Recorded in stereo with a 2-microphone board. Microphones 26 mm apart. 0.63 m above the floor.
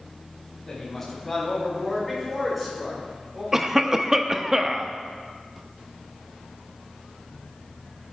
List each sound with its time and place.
0.7 s a woman speaking: 15° left (ahead or behind), 5 m; by 3.4 s 10° right (ahead or behind), 8 m
3.5 s a cough: 15° right (ahead or behind), 0.7 m